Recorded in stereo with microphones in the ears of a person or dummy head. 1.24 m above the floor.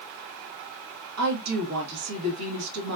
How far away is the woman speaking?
About 1.9 m.